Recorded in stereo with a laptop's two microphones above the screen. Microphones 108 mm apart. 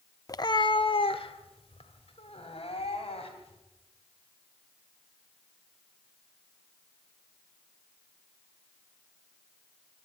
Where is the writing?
I don't hear writing.